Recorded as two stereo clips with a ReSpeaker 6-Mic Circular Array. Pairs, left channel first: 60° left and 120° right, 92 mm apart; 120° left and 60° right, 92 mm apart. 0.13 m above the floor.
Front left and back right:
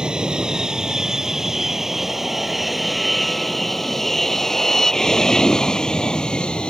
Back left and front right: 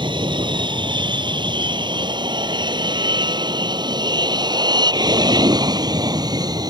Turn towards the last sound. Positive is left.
turn(degrees=-20)